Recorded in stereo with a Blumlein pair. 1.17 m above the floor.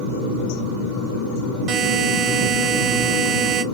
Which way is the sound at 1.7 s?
25° right.